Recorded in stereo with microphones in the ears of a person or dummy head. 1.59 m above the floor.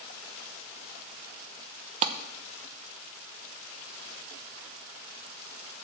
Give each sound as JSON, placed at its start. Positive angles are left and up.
{"t": 2.0, "sound": "a clap", "side_deg": -30, "distance_m": 0.9}